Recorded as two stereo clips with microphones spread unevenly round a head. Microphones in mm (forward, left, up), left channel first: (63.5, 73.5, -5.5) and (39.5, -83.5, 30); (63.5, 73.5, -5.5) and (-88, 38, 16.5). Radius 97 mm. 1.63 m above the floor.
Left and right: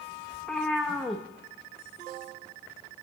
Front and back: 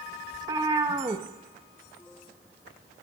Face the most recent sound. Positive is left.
turn(degrees=-170)